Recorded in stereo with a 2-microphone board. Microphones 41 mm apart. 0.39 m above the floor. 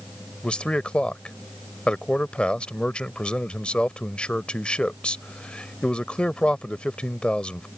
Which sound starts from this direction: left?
A man speaking, at 0.4 s.